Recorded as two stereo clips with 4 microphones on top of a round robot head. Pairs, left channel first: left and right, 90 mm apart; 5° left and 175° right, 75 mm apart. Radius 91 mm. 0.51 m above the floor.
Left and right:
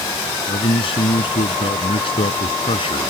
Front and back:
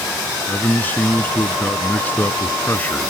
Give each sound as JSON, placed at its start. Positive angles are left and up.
{"t": 0.5, "sound": "a man speaking", "azimuth_deg": 70}